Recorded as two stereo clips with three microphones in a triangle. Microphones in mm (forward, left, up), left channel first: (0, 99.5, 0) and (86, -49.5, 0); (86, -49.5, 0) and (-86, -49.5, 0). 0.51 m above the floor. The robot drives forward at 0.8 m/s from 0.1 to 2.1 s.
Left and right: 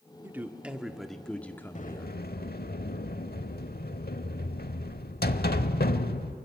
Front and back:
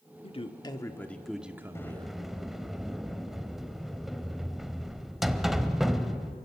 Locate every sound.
0.2 s a man speaking: 10° left, 1.5 m; by 2.1 s 170° left, 1.3 m
1.8 s a sliding door: 75° left, 0.9 m; by 6.4 s 90° left, 0.9 m